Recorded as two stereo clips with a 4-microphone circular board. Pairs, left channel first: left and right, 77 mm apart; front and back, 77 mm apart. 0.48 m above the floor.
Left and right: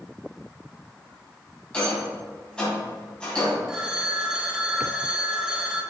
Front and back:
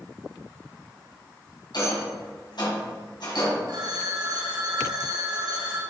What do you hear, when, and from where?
1.7 s a rattle: 15° left, 3 m
3.7 s a phone ringing: 170° right, 1.4 m